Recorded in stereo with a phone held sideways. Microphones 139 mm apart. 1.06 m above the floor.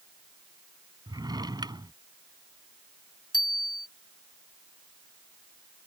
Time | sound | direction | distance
1.1 | a drawer | 30° right (ahead or behind) | ?
3.3 | a bicycle bell | 30° left (ahead or behind) | ?